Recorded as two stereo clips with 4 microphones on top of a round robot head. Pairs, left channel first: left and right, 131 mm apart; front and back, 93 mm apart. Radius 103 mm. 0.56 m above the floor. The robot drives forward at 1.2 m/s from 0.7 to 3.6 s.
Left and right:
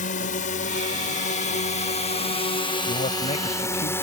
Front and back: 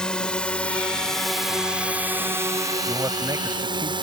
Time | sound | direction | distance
0.0 | a drone | 80° left | ?
2.9 | a man speaking | 120° left | ?